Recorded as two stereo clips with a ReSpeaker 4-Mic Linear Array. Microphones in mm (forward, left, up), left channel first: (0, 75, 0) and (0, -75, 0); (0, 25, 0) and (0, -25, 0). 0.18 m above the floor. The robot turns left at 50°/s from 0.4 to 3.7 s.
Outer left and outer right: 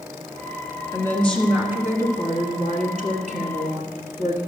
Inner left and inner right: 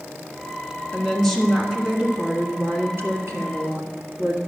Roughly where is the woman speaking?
Ahead left.